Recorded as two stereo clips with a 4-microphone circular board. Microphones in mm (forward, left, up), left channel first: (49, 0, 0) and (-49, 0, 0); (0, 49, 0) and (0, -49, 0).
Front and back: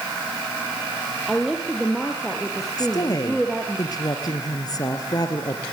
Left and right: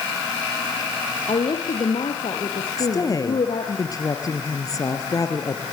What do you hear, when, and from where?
1.3 s a woman speaking: 90° left, 3 m
2.8 s a woman speaking: 45° left, 3 m